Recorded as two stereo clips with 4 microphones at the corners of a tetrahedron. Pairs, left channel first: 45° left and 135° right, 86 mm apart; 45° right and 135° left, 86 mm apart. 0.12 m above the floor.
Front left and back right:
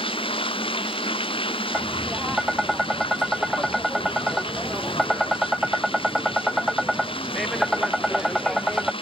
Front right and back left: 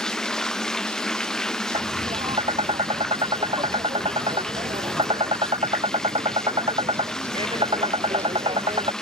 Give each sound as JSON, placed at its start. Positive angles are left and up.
{"t": 0.0, "sound": "running water", "azimuth_deg": 40}
{"t": 1.7, "sound": "tapping", "azimuth_deg": 135}